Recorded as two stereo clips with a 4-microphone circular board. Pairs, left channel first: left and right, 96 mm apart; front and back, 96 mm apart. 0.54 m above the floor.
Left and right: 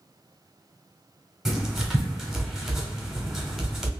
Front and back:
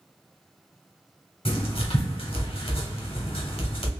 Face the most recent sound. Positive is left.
turn(degrees=-5)